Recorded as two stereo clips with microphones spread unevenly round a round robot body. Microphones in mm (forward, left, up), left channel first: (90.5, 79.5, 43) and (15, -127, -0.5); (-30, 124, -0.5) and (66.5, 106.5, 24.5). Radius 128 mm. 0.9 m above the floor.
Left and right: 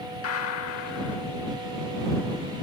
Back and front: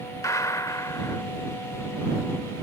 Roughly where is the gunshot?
Left.